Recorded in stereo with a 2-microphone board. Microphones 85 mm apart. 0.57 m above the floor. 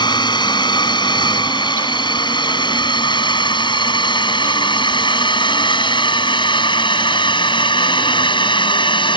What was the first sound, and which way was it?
A drone, 60° left (ahead or behind).